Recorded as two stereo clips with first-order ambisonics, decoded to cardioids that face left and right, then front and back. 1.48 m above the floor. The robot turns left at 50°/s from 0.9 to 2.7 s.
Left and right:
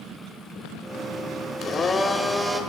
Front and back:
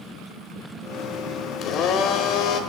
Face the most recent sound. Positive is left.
turn(degrees=-20)